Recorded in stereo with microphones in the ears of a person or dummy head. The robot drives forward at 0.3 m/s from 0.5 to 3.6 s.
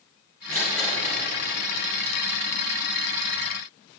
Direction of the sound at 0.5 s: 5° left (ahead or behind).